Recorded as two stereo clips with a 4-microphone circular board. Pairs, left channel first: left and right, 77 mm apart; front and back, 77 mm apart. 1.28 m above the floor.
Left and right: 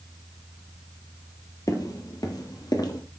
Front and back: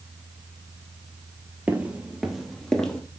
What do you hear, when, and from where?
1.7 s footsteps: 115° left, 2 m; by 3.0 s 80° left, 2.5 m